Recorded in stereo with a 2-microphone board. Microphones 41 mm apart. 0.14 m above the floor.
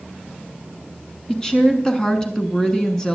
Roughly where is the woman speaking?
Centre.